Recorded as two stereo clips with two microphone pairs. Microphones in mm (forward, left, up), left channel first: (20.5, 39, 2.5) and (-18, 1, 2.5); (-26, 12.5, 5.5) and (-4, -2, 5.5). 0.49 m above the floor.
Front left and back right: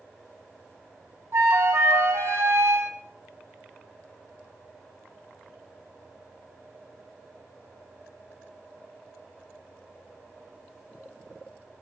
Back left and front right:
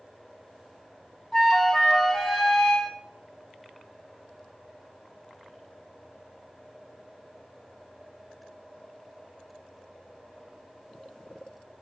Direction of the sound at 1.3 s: 150° right.